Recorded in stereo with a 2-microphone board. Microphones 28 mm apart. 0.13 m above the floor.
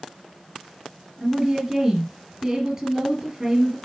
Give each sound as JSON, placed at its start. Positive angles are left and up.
{"t": 1.2, "sound": "a woman speaking", "side_deg": -25, "distance_m": 2.5}